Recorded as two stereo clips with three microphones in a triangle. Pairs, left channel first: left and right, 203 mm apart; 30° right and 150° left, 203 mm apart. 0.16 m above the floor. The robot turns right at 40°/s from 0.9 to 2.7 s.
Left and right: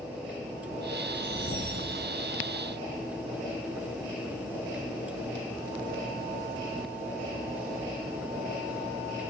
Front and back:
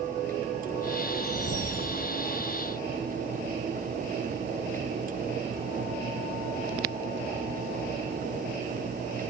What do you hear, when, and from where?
1.1 s a whoosh: 115° left, 6 m; by 2.0 s 145° left, 6 m